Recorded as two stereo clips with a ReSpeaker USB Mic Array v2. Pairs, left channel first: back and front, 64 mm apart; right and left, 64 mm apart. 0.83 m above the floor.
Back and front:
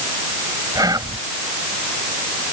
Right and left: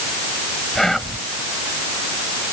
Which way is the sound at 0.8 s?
5° right.